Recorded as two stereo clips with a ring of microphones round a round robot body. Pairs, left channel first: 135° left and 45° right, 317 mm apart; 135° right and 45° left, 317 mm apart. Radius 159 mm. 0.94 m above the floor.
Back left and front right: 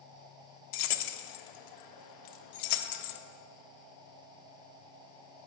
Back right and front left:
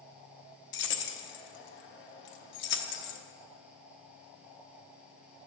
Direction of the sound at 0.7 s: 165° left.